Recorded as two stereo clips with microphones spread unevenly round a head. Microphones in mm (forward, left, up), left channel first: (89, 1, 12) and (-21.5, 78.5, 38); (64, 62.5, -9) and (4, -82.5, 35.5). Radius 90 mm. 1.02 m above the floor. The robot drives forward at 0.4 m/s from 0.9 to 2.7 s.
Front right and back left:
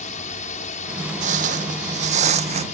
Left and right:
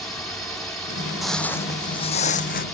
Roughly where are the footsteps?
Behind.